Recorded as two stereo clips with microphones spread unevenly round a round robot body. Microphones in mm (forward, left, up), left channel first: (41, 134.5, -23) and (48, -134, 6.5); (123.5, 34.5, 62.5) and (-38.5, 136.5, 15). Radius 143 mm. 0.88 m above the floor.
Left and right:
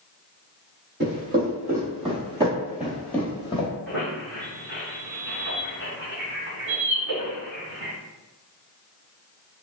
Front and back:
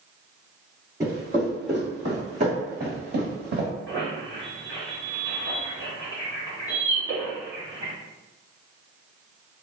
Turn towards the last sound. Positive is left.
turn(degrees=-115)